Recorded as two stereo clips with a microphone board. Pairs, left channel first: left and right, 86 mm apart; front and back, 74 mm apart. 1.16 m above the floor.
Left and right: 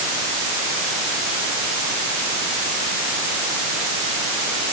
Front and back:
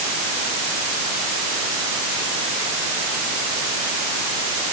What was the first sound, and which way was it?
Only background noise.